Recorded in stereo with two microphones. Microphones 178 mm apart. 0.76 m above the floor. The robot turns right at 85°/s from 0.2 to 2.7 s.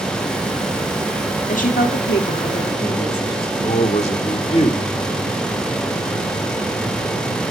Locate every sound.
1.5 s a woman speaking: 45° left, 1.8 m; by 3.5 s 145° left, 1.8 m
3.6 s a man speaking: 35° left (ahead or behind), 2 m